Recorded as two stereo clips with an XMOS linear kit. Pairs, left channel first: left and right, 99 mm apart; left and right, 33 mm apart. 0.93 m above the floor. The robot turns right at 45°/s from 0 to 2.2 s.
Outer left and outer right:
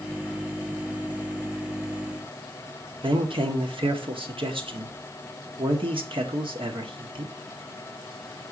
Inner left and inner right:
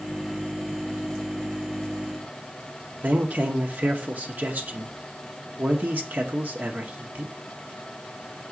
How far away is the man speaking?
About 1.8 m.